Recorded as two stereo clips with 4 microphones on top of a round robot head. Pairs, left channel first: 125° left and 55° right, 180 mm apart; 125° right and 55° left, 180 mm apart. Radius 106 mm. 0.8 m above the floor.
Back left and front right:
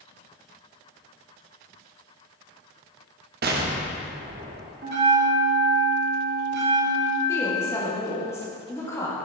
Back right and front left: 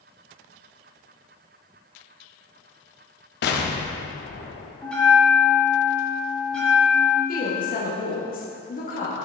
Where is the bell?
40° right, 1.4 m.